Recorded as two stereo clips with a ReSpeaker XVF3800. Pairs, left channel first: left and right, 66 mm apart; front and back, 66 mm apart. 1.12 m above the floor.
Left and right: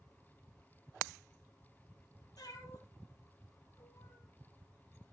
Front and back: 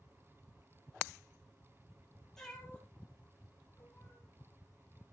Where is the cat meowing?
80° left, 4.5 m; by 4.2 s 60° left, 6.5 m.